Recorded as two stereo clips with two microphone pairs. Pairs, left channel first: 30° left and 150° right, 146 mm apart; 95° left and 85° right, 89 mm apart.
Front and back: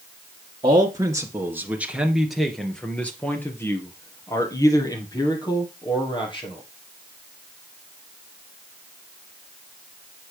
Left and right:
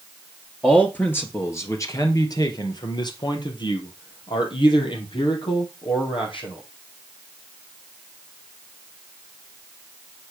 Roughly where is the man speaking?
Behind.